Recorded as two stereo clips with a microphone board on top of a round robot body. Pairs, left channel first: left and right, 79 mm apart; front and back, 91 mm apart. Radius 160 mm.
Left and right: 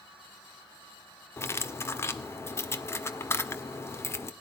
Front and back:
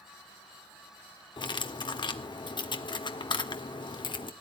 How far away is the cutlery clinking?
About 1.6 m.